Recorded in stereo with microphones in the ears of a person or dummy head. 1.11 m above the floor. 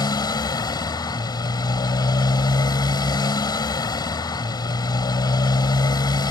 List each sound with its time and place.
0.0 s a motorcycle: 25° left (ahead or behind)